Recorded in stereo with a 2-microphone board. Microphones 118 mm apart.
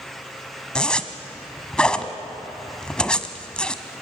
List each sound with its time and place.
0.8 s a zipper: 10° left (ahead or behind), 1.2 m